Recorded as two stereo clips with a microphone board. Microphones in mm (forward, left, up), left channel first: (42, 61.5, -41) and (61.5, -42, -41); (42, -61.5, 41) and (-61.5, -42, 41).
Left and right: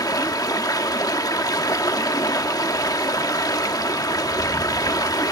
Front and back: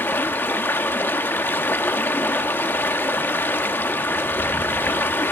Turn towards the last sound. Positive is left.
turn(degrees=55)